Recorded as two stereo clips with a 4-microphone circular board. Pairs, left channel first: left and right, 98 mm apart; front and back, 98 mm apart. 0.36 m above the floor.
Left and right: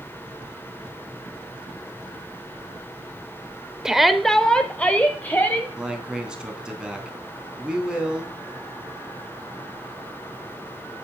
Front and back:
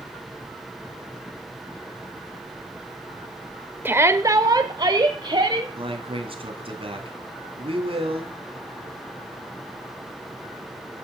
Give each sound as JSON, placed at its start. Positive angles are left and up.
{"t": 3.9, "sound": "a shout", "azimuth_deg": -160, "distance_m": 0.9}
{"t": 5.8, "sound": "a man speaking", "azimuth_deg": -170, "distance_m": 3.0}